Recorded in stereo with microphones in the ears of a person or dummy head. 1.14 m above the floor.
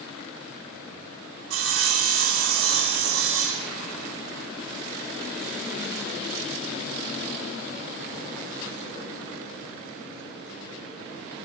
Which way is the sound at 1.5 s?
80° right.